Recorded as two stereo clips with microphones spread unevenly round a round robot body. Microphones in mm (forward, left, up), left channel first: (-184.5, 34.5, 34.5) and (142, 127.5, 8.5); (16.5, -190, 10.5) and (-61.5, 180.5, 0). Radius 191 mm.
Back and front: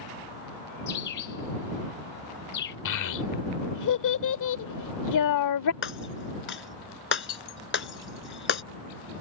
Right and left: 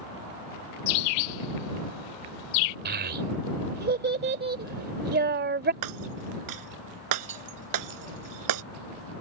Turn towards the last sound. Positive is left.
turn(degrees=140)